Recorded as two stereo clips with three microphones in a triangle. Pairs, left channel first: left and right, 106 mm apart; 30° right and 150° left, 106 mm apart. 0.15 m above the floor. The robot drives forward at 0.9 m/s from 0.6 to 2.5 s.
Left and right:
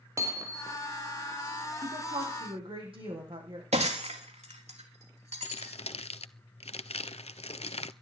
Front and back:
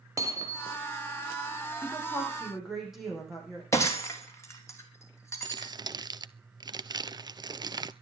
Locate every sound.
0.2 s hammering: 150° right, 2 m; by 0.8 s 155° right, 2 m
1.8 s a woman speaking: 120° right, 8 m; by 3.6 s 125° right, 8 m
3.7 s breaking glass: 95° right, 4 m
5.4 s crumpling: 100° left, 0.5 m